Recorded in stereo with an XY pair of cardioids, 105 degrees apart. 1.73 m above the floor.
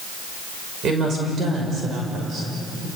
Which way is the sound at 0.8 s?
55° right.